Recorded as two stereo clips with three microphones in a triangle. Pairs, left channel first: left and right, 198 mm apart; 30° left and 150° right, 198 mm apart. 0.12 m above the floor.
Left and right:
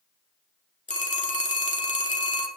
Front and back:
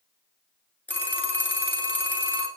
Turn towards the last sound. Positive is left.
turn(degrees=105)